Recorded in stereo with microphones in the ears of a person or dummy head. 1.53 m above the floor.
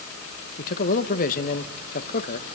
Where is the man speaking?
50° left (ahead or behind), 1.2 m.